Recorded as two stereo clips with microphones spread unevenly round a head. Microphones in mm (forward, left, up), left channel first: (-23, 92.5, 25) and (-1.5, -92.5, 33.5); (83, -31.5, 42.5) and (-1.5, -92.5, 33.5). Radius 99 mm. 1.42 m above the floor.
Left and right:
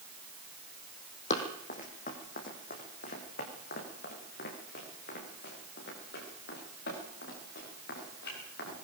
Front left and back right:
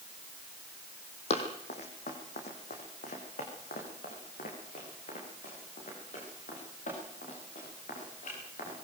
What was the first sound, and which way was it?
Running footsteps, 45° left.